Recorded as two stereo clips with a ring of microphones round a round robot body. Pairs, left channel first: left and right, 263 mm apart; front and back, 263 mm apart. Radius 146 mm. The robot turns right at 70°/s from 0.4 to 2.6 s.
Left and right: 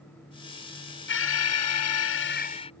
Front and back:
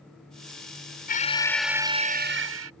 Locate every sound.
1.1 s an alarm: 50° left; by 2.7 s 160° left